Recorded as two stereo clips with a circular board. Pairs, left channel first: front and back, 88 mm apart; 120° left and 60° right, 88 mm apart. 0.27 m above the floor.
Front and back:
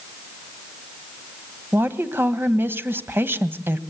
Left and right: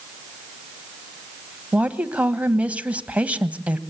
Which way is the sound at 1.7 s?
130° right.